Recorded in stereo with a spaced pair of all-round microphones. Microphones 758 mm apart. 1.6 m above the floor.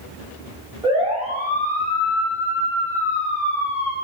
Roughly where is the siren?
Centre.